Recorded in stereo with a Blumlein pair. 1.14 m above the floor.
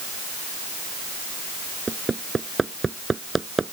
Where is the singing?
No singing in this recording.